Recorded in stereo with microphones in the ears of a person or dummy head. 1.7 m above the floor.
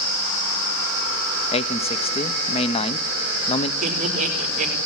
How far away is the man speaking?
About 1.2 m.